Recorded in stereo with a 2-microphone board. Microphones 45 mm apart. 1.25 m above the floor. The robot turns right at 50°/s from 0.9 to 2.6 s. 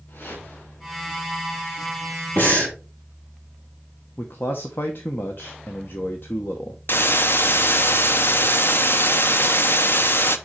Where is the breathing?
45° left (ahead or behind), 3 m; by 2.8 s 35° left (ahead or behind), 3 m.